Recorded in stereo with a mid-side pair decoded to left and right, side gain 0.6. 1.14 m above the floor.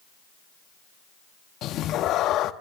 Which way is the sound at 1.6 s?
60° left.